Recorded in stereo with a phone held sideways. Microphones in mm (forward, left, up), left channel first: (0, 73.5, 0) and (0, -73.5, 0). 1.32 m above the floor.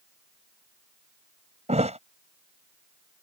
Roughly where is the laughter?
No laughter in this recording.